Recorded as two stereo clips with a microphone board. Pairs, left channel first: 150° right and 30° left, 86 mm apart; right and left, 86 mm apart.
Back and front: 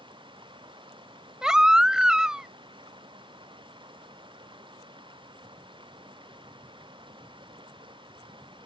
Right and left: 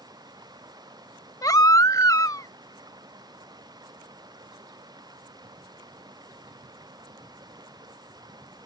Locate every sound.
0.0 s running water: 50° left
1.4 s a baby crying: 50° right